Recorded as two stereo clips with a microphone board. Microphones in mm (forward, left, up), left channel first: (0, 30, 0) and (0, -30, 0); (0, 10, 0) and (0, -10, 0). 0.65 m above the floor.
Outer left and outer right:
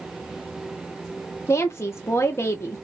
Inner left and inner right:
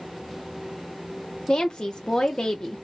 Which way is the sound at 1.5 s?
50° left (ahead or behind).